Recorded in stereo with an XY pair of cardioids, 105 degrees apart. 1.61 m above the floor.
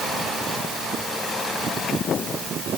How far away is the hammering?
I don't hear hammering.